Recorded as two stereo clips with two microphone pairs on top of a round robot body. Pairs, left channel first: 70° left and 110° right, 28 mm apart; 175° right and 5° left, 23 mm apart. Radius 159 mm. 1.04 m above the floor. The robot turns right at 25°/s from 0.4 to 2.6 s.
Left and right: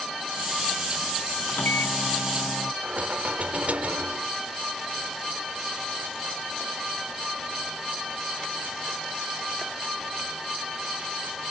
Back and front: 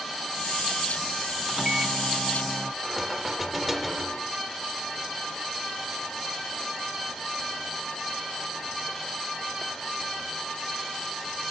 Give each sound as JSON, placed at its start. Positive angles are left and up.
{"t": 1.5, "sound": "a microwave", "azimuth_deg": 60}
{"t": 2.8, "sound": "knocking", "azimuth_deg": -80}